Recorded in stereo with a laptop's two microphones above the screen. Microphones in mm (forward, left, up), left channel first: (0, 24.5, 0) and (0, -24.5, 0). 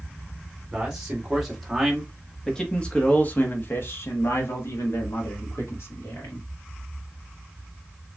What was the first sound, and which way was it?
A man speaking, 15° right (ahead or behind).